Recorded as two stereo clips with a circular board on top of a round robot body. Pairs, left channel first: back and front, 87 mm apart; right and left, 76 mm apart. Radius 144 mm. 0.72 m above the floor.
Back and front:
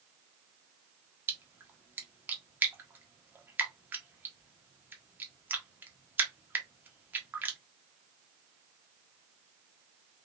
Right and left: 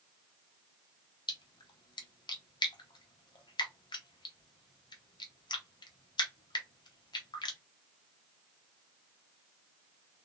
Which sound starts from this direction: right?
A splash, at 1.3 s.